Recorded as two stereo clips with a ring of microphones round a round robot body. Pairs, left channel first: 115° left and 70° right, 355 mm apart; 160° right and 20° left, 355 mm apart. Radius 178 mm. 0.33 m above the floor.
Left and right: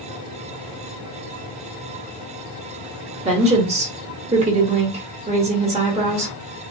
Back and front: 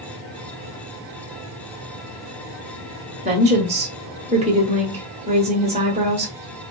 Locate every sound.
3.2 s a woman speaking: 20° right, 1.1 m